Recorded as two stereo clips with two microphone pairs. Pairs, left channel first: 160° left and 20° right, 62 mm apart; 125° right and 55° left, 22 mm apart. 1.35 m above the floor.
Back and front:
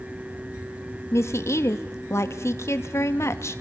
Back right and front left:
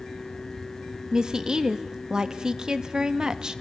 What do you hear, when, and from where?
1.1 s a woman speaking: 115° left, 1.5 m